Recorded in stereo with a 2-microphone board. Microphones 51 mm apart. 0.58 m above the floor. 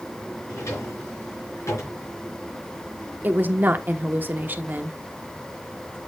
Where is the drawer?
70° left (ahead or behind), 4.5 m.